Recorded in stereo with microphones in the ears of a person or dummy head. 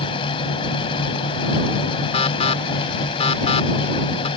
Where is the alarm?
30° left (ahead or behind).